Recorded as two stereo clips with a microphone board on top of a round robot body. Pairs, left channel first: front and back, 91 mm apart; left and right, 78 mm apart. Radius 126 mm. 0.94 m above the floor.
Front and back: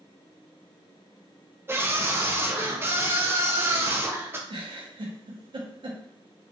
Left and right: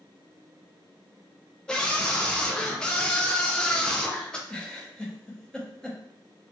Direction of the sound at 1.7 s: 160° left.